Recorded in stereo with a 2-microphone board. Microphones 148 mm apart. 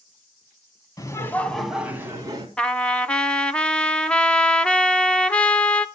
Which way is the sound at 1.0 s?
25° left (ahead or behind).